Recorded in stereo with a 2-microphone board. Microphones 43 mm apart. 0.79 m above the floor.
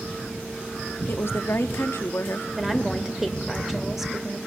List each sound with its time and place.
1.1 s a woman speaking: 65° left (ahead or behind), 1.2 m
2.6 s a woman speaking: 5° right (ahead or behind), 2.5 m